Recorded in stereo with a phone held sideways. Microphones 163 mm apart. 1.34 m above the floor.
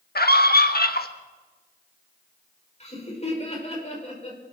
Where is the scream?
65° left (ahead or behind), 1.5 m.